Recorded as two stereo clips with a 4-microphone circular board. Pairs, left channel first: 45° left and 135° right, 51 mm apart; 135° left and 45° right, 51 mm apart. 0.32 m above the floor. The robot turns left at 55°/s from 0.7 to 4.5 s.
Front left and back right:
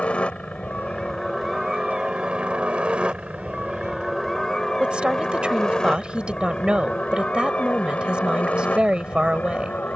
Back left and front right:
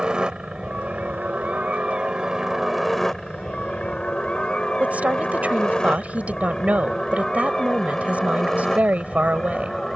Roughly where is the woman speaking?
Right.